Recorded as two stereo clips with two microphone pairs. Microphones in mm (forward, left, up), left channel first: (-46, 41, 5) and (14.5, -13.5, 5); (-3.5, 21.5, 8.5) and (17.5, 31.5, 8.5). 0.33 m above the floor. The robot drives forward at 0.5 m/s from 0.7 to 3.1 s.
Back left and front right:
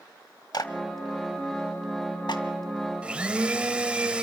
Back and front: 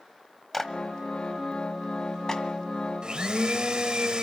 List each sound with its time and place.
0.5 s a clap: 120° left, 1.4 m; by 2.4 s 145° left, 2.0 m
3.0 s a blender: 30° left, 1.3 m